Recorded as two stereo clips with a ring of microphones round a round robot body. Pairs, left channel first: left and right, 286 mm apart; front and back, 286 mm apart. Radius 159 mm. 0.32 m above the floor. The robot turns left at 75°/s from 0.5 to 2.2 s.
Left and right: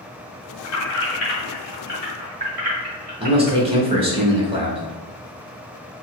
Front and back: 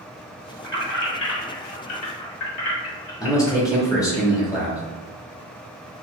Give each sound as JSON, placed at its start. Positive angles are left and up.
{"t": 0.6, "sound": "keys jangling", "azimuth_deg": 85, "distance_m": 1.9}
{"t": 3.2, "sound": "a man speaking", "azimuth_deg": -60, "distance_m": 1.2}